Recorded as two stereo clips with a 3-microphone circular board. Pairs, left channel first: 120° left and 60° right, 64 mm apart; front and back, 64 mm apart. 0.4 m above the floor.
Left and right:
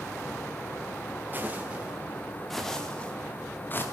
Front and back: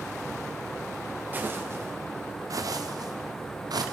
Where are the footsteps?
120° right, 3.5 m; by 3.9 s 175° left, 3.5 m.